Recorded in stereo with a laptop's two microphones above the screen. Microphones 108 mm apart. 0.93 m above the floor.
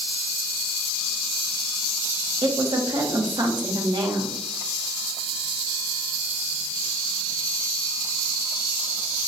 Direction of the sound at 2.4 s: 45° right (ahead or behind).